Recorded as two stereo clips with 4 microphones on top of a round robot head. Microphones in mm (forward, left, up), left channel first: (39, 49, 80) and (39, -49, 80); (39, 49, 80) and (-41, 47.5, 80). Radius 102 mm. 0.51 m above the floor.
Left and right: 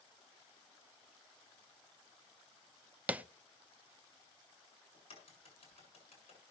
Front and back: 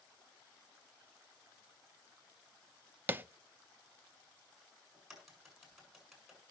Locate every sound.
3.1 s tapping: 150° right, 0.7 m
4.9 s a crack: 95° left, 7 m